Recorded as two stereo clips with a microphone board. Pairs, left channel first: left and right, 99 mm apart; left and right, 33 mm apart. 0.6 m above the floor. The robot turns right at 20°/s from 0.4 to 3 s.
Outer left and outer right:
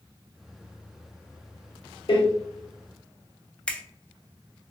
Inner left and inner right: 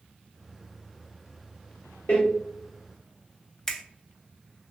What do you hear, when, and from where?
2.1 s a door slam: 60° left (ahead or behind), 1.1 m
3.7 s a finger snap: 10° left (ahead or behind), 0.5 m